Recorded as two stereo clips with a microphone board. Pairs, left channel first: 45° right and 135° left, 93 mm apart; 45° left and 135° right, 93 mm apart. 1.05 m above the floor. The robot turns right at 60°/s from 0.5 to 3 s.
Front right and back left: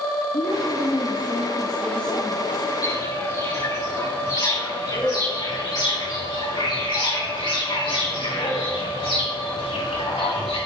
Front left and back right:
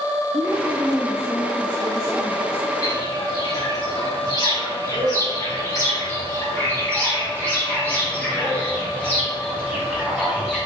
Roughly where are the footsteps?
Ahead.